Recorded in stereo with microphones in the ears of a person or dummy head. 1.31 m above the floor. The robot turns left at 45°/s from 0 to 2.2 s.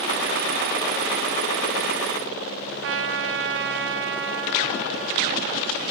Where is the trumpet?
60° right (ahead or behind), 0.8 m.